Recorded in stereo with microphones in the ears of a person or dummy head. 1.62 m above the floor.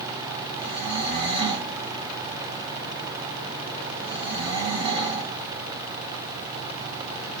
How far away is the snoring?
About 0.8 m.